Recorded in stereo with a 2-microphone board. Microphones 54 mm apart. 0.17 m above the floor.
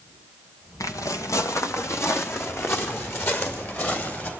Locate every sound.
0.8 s footsteps: 80° left, 2.0 m; by 4.3 s 40° left (ahead or behind), 5.5 m